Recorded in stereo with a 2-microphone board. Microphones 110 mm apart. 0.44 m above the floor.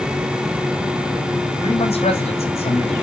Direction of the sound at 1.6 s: 65° left (ahead or behind).